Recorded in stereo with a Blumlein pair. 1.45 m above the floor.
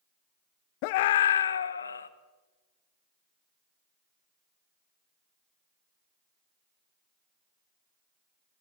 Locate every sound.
0.8 s a scream: 45° left, 0.7 m; by 2.1 s 75° left, 1.7 m